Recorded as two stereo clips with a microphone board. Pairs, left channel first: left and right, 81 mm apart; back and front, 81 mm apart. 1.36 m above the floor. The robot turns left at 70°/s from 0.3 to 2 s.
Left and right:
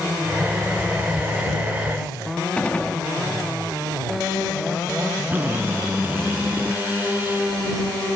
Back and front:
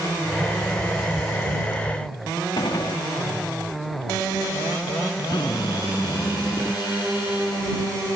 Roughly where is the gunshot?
Behind.